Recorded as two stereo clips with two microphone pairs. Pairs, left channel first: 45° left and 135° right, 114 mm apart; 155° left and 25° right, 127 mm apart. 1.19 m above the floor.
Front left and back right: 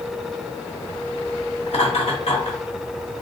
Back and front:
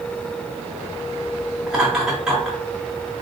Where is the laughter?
60° left, 2 m.